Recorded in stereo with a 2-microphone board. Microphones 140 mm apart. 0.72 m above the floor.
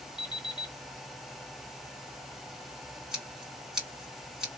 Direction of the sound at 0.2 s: 30° left (ahead or behind).